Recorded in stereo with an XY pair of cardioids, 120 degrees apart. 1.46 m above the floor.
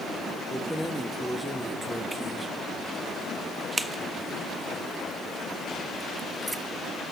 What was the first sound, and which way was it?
Keys jangling, 10° right.